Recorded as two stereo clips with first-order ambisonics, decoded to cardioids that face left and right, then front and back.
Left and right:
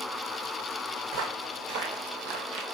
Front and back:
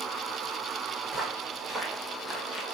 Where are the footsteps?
105° right, 2 m; by 2.6 s 90° right, 1.1 m.